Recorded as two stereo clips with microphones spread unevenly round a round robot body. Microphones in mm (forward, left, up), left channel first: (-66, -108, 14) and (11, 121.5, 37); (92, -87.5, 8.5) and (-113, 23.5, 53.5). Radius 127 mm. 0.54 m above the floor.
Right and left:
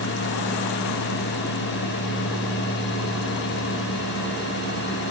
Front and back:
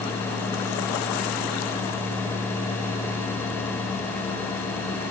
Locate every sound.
Only background noise.